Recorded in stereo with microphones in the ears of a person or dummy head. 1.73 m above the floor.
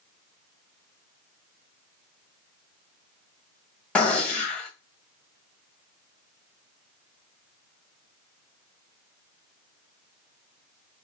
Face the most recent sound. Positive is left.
turn(degrees=10)  # may be behind; listen again after turning